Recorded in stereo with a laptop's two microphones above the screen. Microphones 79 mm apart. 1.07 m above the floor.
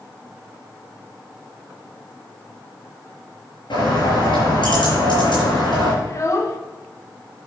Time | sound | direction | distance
3.7 | a bird | 80° left | 5 m
6.0 | a child speaking | 40° left (ahead or behind) | 1.6 m